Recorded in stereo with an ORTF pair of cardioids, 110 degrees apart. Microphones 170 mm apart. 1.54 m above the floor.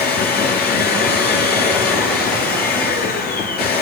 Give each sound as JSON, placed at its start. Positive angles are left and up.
{"t": 0.0, "sound": "a machine running", "azimuth_deg": 70, "distance_m": 9.0}